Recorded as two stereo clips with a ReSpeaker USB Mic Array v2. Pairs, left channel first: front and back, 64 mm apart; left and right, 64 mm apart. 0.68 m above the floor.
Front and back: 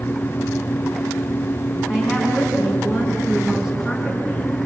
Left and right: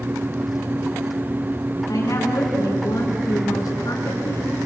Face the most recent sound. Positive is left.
turn(degrees=95)